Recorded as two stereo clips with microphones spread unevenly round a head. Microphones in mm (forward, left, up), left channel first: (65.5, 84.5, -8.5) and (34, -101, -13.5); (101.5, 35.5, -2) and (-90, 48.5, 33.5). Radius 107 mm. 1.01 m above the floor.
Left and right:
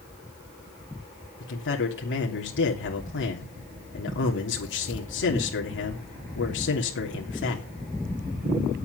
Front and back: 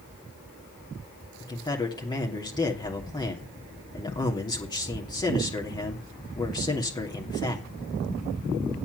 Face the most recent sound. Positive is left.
turn(degrees=60)